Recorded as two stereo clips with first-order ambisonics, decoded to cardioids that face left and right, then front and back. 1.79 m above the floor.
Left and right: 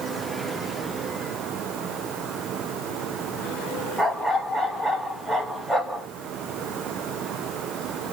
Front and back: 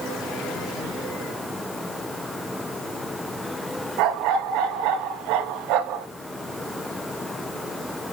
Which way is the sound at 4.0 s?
Straight behind.